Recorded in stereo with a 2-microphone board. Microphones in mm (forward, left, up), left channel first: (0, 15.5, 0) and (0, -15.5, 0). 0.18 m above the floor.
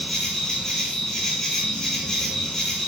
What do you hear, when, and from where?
0.0 s an insect: 15° left (ahead or behind), 0.8 m